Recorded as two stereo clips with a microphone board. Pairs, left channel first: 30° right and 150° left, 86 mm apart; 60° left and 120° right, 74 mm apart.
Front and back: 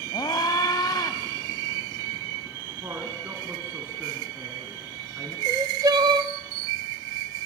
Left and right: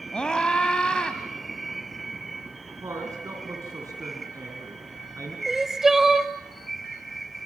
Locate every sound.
0.1 s a scream: 15° right, 1.5 m
2.8 s a woman speaking: 155° right, 3.5 m
5.5 s crying: 160° left, 0.8 m